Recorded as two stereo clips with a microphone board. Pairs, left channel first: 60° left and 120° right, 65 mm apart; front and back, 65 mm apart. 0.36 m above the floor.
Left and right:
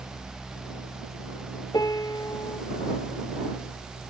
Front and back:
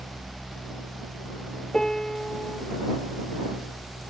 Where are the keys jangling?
No keys jangling in this recording.